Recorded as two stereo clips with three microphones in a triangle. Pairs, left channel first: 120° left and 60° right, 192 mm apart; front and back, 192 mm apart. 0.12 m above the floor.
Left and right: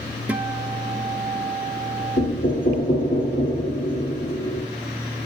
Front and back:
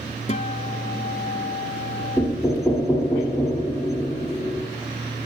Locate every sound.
0.3 s a guitar: 20° left, 0.8 m
2.2 s knocking: 90° left, 2.5 m